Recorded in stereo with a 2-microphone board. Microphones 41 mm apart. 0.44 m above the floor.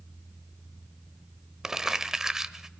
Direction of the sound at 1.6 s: 15° right (ahead or behind).